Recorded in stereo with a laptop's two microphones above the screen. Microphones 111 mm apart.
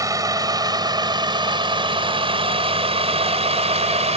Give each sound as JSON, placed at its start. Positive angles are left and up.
{"t": 0.0, "sound": "a vehicle", "side_deg": -30}